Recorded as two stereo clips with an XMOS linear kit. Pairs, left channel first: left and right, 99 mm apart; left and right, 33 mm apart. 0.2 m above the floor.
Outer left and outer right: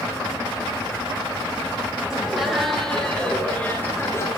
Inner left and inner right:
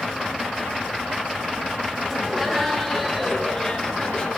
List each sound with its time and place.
2.1 s laughter: 5° right (ahead or behind), 5.5 m; by 4.3 s 30° left (ahead or behind), 3.5 m